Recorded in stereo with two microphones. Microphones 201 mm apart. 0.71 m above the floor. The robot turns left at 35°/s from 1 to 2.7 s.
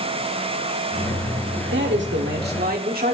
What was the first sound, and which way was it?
A man speaking, 95° right.